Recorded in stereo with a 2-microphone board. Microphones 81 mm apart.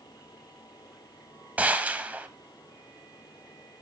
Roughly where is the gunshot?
Centre.